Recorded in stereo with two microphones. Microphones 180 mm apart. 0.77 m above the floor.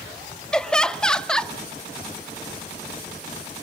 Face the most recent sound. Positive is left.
turn(degrees=5)  # may be behind; listen again after turning